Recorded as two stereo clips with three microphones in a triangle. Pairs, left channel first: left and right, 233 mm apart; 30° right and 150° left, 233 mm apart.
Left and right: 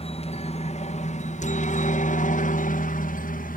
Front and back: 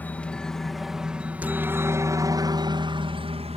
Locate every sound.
0.0 s a helicopter: 50° left; by 3.6 s 105° left